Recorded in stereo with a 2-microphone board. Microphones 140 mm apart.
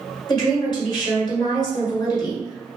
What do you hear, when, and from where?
0.3 s a woman speaking: 35° left (ahead or behind), 1.5 m